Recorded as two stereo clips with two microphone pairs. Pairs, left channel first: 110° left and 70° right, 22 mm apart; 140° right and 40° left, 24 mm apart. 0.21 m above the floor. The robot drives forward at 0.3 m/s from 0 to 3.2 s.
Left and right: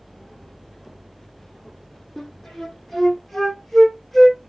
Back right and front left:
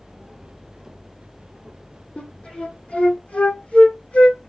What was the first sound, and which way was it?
A flute, 165° right.